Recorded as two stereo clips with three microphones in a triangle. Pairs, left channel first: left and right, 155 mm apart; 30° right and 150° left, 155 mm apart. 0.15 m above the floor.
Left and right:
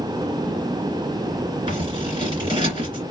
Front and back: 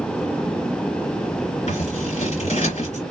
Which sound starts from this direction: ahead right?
Scissors, at 1.7 s.